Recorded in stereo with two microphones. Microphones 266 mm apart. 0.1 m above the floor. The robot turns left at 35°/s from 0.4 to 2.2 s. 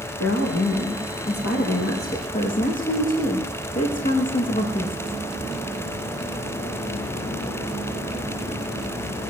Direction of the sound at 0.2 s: 95° left.